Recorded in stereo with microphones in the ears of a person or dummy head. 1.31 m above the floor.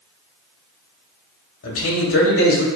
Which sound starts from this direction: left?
A man speaking, at 1.6 s.